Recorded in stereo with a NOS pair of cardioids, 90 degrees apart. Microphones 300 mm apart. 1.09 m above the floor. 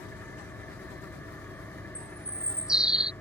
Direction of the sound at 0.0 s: 5° left.